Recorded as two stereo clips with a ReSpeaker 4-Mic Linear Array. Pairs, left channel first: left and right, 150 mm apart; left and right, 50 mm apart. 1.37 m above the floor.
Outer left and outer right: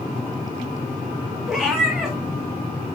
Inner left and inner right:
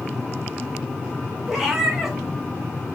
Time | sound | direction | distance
1.5 | a cat meowing | 5° right (ahead or behind) | 1.5 m